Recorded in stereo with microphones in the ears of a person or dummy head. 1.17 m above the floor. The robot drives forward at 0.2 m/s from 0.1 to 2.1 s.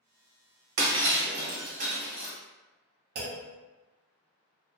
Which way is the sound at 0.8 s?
55° right (ahead or behind).